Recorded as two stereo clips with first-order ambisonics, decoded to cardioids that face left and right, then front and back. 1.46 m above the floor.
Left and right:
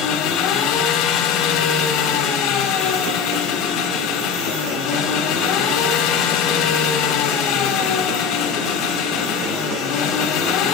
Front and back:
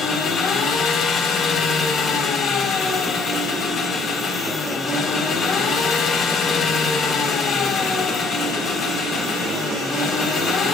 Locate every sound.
0.0 s an engine running: 55° left, 3.5 m